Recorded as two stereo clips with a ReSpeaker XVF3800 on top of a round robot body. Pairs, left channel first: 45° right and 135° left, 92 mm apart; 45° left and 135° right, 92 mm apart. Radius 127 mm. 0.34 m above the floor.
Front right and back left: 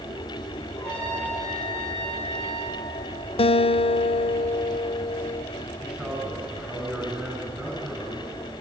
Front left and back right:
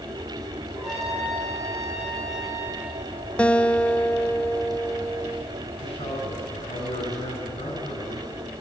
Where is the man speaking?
65° left, 5.5 m.